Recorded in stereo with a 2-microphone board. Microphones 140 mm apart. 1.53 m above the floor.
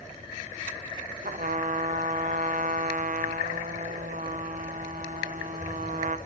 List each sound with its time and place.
1.2 s a trumpet: 70° right (ahead or behind), 0.6 m